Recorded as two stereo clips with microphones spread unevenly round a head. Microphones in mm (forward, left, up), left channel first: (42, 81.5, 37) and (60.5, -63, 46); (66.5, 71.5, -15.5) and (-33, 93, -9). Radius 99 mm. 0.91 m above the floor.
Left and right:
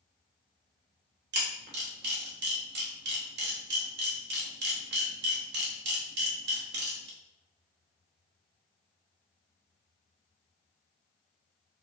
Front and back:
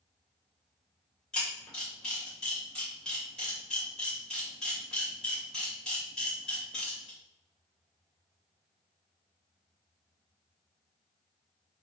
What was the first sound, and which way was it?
A camera shutter, 100° right.